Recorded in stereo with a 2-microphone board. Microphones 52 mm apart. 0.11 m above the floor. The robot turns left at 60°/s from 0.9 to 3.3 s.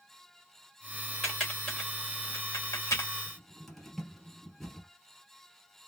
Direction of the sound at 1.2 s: Centre (ahead or behind).